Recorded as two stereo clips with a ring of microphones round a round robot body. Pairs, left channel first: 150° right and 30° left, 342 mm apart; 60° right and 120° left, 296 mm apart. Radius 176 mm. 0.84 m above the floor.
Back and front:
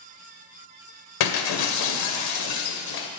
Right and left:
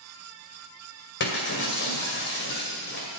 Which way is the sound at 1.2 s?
120° right.